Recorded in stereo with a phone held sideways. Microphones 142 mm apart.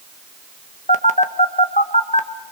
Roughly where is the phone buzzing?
Left.